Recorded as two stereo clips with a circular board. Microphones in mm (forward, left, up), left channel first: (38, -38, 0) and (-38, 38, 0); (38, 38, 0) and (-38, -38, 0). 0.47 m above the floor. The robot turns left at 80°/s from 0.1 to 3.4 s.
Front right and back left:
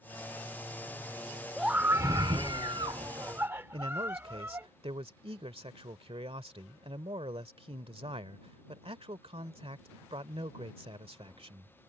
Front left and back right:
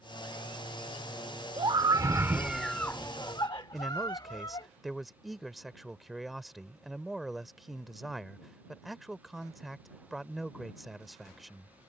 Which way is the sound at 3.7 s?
135° left.